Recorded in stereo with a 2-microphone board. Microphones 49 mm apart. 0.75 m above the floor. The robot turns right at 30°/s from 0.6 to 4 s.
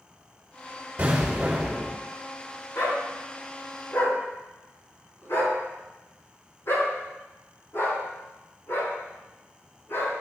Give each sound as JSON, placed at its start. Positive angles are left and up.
{"t": 1.0, "sound": "an explosion", "side_deg": -40, "distance_m": 3.5}
{"t": 2.8, "sound": "a dog barking", "side_deg": 85, "distance_m": 3.5}